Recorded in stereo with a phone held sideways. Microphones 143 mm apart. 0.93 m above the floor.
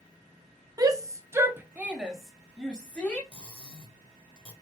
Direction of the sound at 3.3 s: 35° left (ahead or behind).